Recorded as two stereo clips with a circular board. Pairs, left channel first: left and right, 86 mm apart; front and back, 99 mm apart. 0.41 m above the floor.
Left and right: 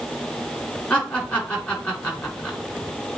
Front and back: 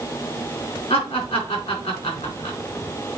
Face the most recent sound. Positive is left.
turn(degrees=15)